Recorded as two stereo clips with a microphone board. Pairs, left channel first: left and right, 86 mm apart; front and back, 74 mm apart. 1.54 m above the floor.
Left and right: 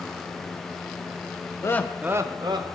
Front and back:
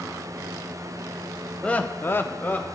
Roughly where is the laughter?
Ahead left.